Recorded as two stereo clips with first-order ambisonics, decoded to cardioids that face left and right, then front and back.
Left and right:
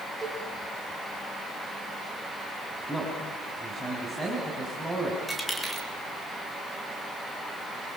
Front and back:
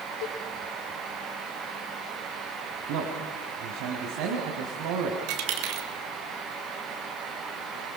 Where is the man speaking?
Straight behind, 3.5 m.